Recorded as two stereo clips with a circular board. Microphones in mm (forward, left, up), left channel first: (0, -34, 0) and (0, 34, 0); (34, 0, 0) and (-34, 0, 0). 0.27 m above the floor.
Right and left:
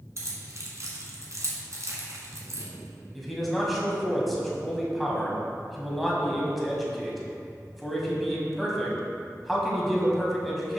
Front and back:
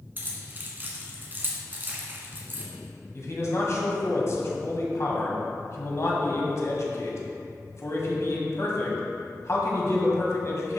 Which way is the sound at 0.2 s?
125° left.